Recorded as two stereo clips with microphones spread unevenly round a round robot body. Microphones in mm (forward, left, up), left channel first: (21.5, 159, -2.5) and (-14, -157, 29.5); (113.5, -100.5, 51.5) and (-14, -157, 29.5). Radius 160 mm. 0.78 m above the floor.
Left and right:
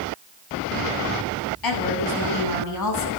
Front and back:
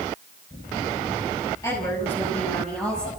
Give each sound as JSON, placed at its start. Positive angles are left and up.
{"t": 1.6, "sound": "a woman speaking", "azimuth_deg": 105, "distance_m": 7.5}